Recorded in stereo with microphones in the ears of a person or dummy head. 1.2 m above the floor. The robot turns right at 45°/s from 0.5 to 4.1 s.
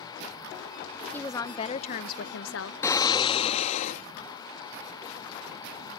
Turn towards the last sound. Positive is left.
turn(degrees=85)